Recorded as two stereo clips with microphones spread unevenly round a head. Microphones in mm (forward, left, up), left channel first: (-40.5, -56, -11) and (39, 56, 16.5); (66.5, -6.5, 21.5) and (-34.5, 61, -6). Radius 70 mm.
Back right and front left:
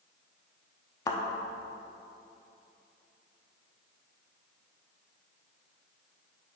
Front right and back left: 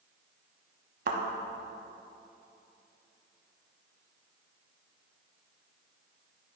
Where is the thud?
165° left, 0.8 m.